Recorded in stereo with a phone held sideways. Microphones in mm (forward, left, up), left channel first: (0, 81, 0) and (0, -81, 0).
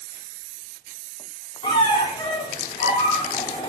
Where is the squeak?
30° left (ahead or behind), 0.7 m.